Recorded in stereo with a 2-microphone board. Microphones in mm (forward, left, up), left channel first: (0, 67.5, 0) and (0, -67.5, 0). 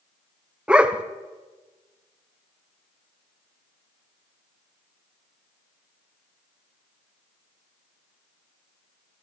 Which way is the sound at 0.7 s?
10° right (ahead or behind).